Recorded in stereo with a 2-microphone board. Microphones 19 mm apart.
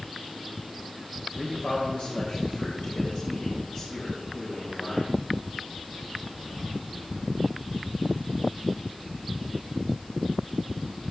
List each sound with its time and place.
1.4 s a man speaking: 65° left (ahead or behind), 3 m; by 5.1 s 40° left (ahead or behind), 4.5 m